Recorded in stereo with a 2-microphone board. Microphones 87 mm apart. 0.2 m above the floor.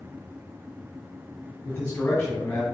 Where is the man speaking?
20° left (ahead or behind), 1.9 m.